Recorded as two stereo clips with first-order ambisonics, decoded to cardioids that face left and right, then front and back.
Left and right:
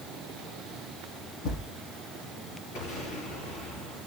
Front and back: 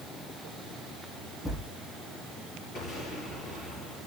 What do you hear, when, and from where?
1.4 s a thud: 75° left, 7 m
2.8 s an explosion: 45° left, 8 m